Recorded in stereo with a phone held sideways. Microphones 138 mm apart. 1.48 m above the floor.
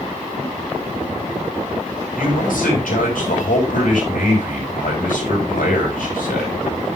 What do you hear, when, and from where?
2.1 s a man speaking: 80° left, 4.5 m